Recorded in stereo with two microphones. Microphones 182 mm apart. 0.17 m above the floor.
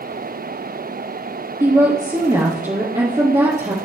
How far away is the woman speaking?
About 2.5 m.